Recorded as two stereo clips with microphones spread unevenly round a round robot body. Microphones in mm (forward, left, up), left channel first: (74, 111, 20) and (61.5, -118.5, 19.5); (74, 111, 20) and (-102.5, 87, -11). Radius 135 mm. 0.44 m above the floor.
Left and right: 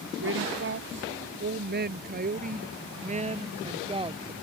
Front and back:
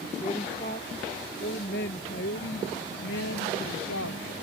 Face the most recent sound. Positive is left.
turn(degrees=-25)